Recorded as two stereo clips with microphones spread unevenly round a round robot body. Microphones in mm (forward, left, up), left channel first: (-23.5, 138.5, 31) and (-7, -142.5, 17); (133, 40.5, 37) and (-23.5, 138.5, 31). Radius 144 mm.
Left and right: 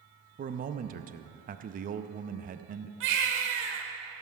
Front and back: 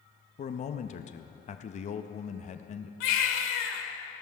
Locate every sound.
0.4 s a man speaking: 55° right, 0.5 m
3.0 s a baby crying: 35° right, 1.3 m